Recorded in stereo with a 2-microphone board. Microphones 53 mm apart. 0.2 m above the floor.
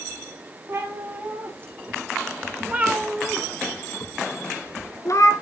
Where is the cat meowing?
45° right (ahead or behind), 2.5 m; by 5.3 s 65° left (ahead or behind), 1.4 m.